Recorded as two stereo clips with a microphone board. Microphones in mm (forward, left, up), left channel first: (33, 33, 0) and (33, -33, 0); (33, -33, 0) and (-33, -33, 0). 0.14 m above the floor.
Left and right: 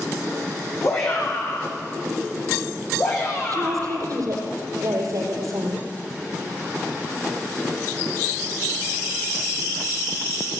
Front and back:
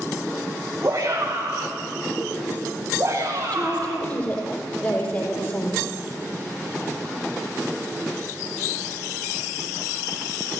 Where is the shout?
130° left, 7.5 m.